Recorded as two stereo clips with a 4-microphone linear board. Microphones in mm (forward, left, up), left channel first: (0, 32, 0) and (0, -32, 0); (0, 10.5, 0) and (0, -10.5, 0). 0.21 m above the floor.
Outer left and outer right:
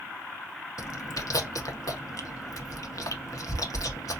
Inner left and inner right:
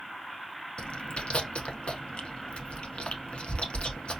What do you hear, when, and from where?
0.8 s chewing: 65° left (ahead or behind), 0.6 m